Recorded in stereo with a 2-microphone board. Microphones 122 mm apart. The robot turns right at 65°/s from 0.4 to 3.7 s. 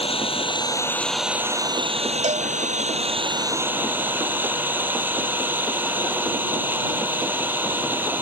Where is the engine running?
130° left; by 8.2 s 15° right.